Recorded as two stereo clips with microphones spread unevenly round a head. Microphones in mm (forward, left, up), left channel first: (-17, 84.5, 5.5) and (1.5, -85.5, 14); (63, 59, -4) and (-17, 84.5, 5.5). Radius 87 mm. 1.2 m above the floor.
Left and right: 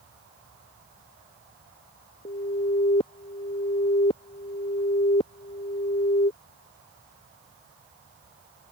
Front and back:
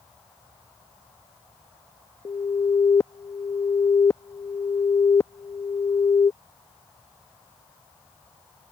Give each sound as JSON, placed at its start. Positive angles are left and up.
{"t": 2.2, "sound": "an alarm", "azimuth_deg": 35}